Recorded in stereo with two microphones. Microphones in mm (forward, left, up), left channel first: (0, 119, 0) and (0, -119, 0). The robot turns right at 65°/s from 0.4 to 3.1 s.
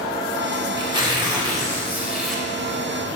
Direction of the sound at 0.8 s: 20° right (ahead or behind).